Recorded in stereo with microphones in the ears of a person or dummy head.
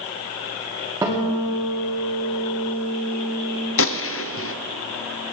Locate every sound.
1.0 s a guitar: 15° right (ahead or behind), 2 m
3.8 s a gunshot: 60° left (ahead or behind), 0.5 m